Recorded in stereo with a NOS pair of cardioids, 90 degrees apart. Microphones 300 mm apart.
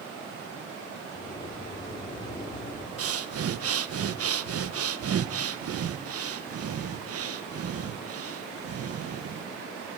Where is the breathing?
50° right, 1.2 m.